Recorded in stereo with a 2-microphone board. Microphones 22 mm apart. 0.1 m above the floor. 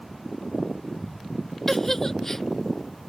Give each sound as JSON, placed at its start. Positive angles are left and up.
{"t": 1.7, "sound": "a giggle", "side_deg": 20}